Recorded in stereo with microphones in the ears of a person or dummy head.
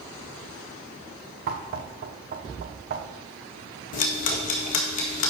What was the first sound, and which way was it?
Knocking, 55° right (ahead or behind).